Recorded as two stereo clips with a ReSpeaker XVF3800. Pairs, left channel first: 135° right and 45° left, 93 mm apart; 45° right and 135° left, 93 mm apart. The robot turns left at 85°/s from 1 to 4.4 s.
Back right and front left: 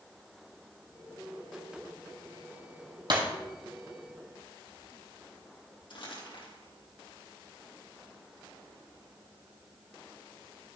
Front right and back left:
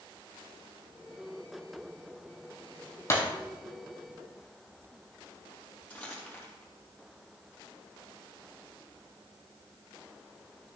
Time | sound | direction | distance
3.1 | breaking glass | 10° left | 2 m
5.9 | crumpling | 120° right | 3.5 m